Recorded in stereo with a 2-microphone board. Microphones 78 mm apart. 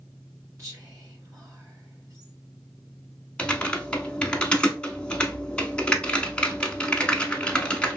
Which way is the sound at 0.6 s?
40° right (ahead or behind).